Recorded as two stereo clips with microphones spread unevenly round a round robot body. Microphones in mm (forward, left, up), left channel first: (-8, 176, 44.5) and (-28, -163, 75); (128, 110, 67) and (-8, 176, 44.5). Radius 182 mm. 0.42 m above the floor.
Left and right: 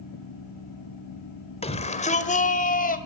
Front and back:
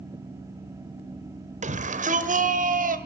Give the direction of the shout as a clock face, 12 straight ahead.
7 o'clock.